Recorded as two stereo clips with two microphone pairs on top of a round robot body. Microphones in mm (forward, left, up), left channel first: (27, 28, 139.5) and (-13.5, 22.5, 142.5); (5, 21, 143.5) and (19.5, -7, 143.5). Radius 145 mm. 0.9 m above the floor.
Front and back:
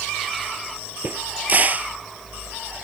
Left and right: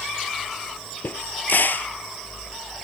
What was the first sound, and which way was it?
A crack, 140° left.